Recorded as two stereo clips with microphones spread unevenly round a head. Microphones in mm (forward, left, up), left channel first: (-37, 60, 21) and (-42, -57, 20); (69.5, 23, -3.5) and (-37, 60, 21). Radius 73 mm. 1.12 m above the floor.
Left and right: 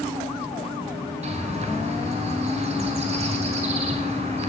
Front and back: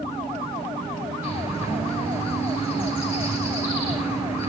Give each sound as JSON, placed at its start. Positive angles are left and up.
{"t": 1.2, "sound": "a bird", "azimuth_deg": -120, "distance_m": 5.0}